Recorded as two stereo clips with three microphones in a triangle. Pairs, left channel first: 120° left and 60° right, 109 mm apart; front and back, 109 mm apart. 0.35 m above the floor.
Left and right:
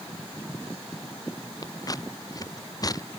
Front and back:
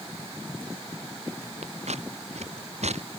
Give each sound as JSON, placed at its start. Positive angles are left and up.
{"t": 1.6, "sound": "scissors", "azimuth_deg": 175}